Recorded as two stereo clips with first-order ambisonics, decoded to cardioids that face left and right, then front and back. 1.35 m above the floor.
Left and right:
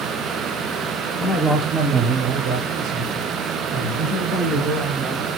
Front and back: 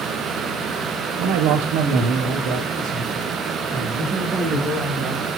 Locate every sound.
1.2 s a man speaking: 175° left, 0.6 m; by 5.3 s 105° right, 2.5 m